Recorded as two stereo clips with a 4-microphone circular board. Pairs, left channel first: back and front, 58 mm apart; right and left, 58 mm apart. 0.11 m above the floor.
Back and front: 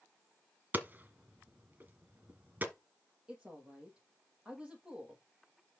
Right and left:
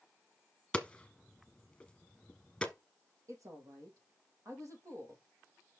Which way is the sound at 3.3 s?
70° left.